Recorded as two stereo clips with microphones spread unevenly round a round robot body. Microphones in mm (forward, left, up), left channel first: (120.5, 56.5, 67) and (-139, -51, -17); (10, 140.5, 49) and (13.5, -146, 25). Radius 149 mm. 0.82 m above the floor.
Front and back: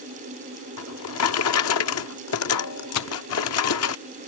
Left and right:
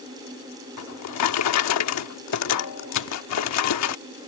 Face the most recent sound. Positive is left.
turn(degrees=45)